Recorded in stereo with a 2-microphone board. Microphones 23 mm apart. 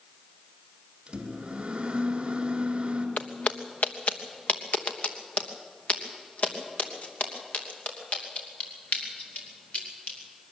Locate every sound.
1.1 s a microwave: 40° right (ahead or behind), 2 m
3.2 s footsteps: 80° left, 0.9 m; by 10.2 s 60° left (ahead or behind), 5 m